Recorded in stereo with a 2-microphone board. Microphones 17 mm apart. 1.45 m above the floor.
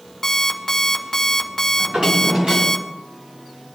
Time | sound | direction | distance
0.2 | an alarm clock | 25° left (ahead or behind) | 1.8 m
1.8 | a drawer | 55° right (ahead or behind) | 7 m